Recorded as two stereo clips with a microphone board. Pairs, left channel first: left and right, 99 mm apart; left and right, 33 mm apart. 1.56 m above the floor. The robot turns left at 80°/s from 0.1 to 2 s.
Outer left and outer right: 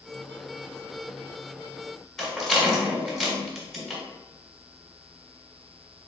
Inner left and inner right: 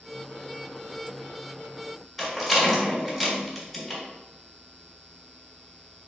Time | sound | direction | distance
2.2 | a rattle | centre (ahead or behind) | 2.0 m